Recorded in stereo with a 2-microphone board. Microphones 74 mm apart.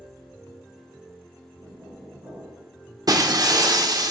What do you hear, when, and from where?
1.6 s knocking: 65° right (ahead or behind), 5.5 m
3.1 s breaking glass: 55° right (ahead or behind), 0.9 m